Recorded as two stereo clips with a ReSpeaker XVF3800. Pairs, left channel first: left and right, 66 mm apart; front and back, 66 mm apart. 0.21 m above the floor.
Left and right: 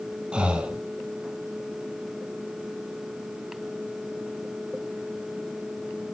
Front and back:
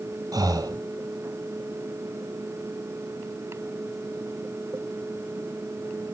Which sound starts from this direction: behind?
Breathing, at 0.3 s.